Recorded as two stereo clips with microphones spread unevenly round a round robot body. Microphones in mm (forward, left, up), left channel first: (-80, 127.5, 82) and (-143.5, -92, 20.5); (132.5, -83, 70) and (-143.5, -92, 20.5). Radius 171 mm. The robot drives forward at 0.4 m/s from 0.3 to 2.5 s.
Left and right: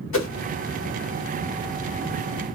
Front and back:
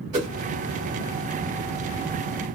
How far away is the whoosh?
About 1.3 m.